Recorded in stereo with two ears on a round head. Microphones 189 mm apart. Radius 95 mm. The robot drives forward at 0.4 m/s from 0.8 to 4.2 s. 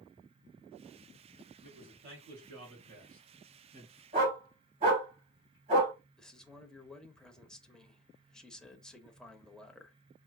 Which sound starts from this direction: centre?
A man speaking, at 6.2 s.